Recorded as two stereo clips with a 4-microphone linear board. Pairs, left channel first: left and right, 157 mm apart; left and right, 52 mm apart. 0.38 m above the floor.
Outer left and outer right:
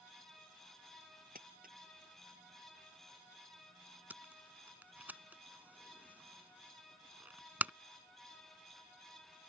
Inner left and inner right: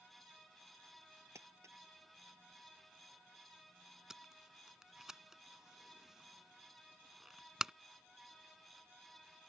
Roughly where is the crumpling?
Right.